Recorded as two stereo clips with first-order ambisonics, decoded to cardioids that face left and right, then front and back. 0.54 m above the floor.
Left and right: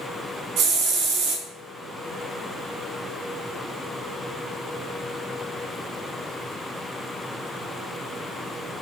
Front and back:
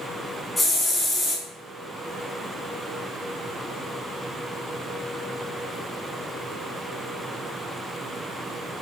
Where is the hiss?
85° right, 1.1 m.